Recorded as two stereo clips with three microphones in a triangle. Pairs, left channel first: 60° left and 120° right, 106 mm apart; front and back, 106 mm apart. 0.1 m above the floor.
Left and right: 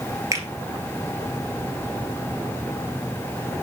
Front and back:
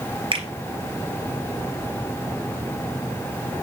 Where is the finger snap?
175° right, 2 m.